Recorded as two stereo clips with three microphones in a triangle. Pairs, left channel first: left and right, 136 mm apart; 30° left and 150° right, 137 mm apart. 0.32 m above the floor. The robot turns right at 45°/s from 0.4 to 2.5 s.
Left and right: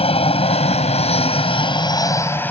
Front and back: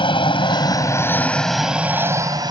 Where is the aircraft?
70° left; by 2.5 s 160° left.